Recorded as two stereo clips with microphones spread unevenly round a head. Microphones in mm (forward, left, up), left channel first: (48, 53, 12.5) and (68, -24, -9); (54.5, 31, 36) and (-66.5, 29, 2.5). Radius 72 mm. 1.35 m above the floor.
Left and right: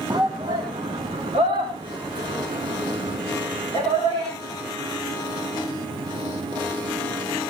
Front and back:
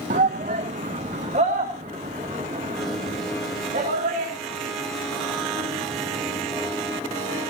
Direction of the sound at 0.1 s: 145° right.